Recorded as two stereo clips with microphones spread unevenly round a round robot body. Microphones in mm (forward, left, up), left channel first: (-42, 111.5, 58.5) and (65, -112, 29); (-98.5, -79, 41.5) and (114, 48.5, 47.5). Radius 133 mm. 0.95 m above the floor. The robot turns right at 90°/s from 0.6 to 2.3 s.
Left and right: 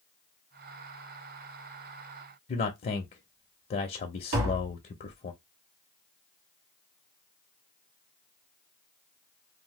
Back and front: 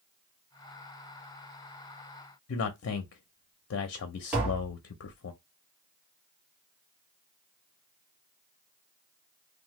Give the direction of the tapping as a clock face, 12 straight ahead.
2 o'clock.